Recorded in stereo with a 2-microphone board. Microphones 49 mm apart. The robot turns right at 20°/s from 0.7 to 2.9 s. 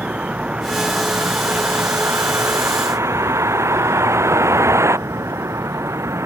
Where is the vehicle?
155° right; by 6.3 s 110° right.